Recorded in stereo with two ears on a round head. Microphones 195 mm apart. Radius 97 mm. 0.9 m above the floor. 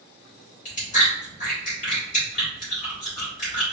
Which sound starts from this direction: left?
Chewing, at 0.7 s.